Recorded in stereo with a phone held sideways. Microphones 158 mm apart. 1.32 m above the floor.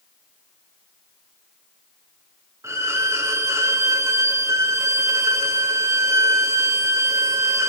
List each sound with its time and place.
2.6 s a violin: 15° right (ahead or behind), 0.6 m